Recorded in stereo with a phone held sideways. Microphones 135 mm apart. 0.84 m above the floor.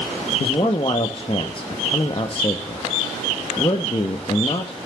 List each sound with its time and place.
0.4 s a man speaking: 40° left (ahead or behind), 0.8 m